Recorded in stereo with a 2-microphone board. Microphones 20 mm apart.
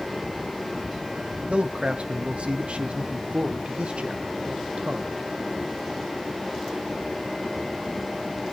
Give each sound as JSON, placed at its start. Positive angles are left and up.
{"t": 1.5, "sound": "a man speaking", "side_deg": -85, "distance_m": 0.8}